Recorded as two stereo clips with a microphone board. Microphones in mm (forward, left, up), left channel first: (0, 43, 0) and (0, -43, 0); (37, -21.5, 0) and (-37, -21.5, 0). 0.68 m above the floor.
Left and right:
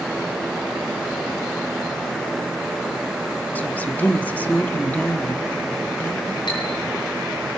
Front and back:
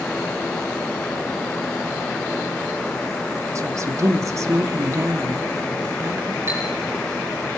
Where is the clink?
125° left, 8 m.